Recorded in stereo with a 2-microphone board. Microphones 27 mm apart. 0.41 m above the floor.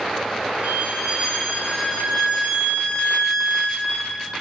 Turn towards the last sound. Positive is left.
turn(degrees=-60)  # may be behind; listen again after turning